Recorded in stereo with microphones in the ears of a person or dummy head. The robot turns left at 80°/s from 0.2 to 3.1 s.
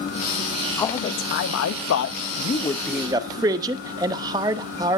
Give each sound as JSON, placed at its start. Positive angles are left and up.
{"t": 0.8, "sound": "a man speaking", "azimuth_deg": 170, "distance_m": 0.8}